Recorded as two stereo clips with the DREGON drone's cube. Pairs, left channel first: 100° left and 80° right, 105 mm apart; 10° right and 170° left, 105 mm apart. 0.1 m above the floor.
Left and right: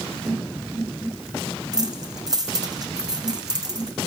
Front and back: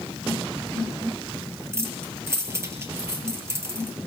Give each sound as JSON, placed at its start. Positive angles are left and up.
{"t": 1.7, "sound": "keys jangling", "azimuth_deg": -125, "distance_m": 2.5}